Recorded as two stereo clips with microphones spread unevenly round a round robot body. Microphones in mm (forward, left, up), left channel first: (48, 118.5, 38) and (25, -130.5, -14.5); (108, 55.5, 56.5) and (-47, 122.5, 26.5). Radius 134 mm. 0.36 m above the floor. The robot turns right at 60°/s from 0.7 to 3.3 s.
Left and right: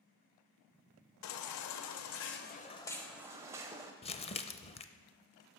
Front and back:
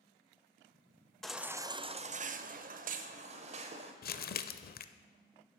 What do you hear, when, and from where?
1.2 s a baby crying: 70° left, 0.6 m; by 3.9 s 165° right, 0.6 m
4.0 s crumpling: 15° left, 0.5 m